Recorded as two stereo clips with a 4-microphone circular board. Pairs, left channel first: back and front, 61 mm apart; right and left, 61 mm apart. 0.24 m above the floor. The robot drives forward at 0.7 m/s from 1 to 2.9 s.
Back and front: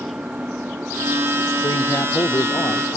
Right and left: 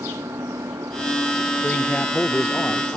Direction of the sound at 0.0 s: 70° left.